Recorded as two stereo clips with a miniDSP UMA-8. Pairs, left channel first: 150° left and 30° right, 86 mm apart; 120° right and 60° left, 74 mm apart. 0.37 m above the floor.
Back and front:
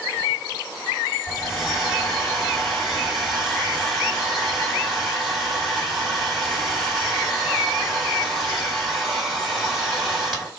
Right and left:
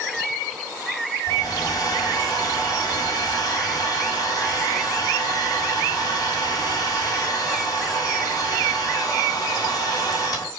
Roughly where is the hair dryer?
Behind right.